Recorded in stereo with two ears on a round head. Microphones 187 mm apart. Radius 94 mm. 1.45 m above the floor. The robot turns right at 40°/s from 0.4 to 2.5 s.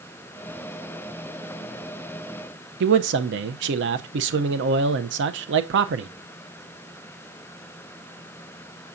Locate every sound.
2.8 s a man speaking: 60° right (ahead or behind), 0.6 m